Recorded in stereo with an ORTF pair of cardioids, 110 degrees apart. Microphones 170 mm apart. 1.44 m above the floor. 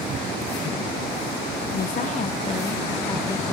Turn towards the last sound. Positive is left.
turn(degrees=10)